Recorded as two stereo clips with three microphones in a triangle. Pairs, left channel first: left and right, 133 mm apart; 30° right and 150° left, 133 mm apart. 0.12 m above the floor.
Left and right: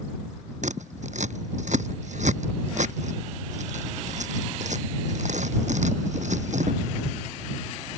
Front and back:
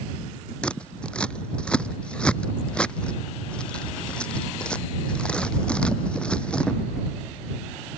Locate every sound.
0.6 s scissors: 110° right